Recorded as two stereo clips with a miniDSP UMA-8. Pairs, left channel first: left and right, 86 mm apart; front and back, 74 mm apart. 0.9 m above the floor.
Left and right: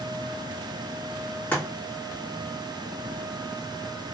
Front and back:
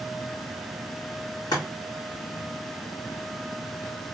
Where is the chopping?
20° left, 1.8 m.